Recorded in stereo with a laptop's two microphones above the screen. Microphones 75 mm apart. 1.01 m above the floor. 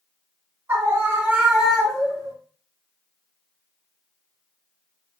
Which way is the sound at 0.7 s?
30° right (ahead or behind).